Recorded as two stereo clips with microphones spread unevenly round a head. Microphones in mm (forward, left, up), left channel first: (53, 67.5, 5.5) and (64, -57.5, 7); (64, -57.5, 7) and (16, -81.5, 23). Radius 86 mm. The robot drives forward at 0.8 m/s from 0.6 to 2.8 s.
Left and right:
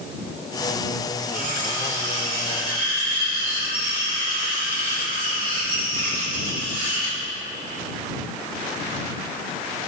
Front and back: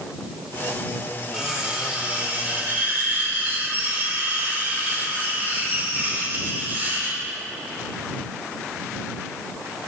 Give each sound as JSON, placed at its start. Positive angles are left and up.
{"t": 1.3, "sound": "cutlery clinking", "azimuth_deg": -75, "distance_m": 2.5}